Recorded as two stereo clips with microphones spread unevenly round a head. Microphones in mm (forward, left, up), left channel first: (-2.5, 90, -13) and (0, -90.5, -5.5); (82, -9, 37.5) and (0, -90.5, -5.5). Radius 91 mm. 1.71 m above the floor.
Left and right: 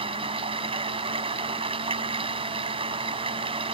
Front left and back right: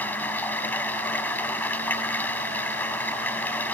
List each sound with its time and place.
0.0 s running water: 25° right